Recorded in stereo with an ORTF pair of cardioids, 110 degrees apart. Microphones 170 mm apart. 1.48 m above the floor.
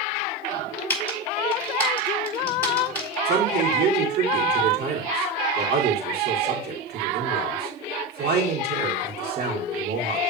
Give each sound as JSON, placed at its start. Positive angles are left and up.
{"t": 0.9, "sound": "typing on a keyboard", "azimuth_deg": 10, "distance_m": 3.0}
{"t": 3.2, "sound": "a man speaking", "azimuth_deg": -60, "distance_m": 3.5}